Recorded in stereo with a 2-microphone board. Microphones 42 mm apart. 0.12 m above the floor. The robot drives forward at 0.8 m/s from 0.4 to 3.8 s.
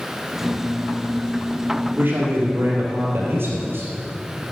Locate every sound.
2.0 s a man speaking: 55° right (ahead or behind), 3 m; by 3.9 s 65° right (ahead or behind), 3 m